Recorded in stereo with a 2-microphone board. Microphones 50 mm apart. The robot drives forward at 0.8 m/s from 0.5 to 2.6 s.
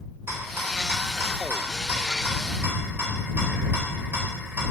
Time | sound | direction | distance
0.3 | a rattle | 60° right (ahead or behind) | 2.5 m